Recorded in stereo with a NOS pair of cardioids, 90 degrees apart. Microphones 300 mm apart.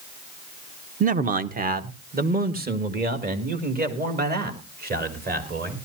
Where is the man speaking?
30° right, 0.9 m; by 5.8 s 35° right, 4.5 m.